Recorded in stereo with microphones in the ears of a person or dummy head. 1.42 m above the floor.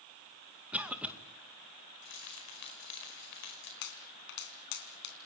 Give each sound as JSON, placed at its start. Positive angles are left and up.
{"t": 0.7, "sound": "a cough", "side_deg": -5, "distance_m": 2.0}
{"t": 2.0, "sound": "keys jangling", "side_deg": 75, "distance_m": 5.0}
{"t": 3.8, "sound": "a pop", "side_deg": 60, "distance_m": 2.5}